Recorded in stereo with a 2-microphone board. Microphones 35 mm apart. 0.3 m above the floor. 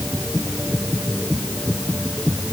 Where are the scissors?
I don't hear scissors.